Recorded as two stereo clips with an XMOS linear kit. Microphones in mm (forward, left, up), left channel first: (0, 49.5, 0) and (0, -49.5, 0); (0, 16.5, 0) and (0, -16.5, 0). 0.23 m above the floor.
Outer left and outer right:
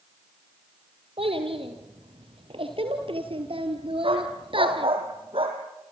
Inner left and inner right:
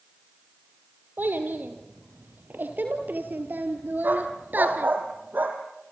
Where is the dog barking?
65° right (ahead or behind), 4 m.